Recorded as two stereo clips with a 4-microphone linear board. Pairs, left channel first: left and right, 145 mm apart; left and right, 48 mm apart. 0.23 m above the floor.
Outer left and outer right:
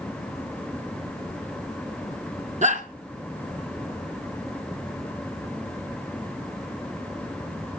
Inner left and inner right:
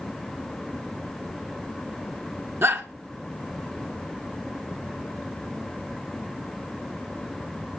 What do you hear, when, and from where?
2.6 s a shout: 55° right (ahead or behind), 2.5 m